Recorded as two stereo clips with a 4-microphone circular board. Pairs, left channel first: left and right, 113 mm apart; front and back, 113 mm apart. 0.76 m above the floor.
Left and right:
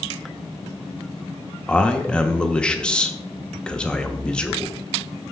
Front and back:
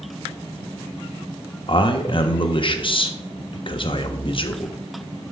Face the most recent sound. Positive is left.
turn(degrees=10)